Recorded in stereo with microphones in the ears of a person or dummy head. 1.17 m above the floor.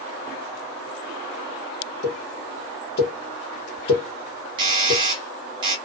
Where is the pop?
65° left (ahead or behind), 1.1 m.